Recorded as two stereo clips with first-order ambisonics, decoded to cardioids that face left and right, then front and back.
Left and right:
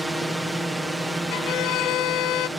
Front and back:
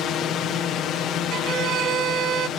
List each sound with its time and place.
0.0 s a drone: 5° right
1.3 s a violin: 125° left